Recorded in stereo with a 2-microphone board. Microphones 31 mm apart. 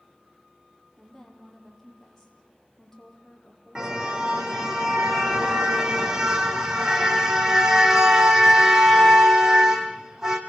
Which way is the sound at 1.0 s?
10° left (ahead or behind).